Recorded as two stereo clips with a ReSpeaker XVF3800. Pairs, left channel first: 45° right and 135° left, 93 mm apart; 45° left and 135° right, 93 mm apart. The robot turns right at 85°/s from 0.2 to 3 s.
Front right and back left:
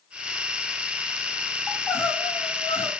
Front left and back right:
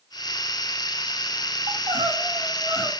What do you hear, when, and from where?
1.7 s crying: 130° right, 3 m; by 2.9 s 30° right, 3 m